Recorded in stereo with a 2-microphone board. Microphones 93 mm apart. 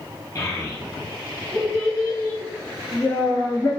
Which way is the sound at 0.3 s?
35° left (ahead or behind).